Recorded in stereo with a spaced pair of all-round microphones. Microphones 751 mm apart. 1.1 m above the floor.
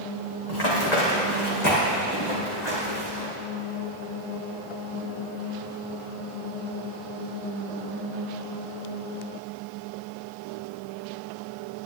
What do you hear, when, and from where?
0.5 s running footsteps: 65° left (ahead or behind), 3 m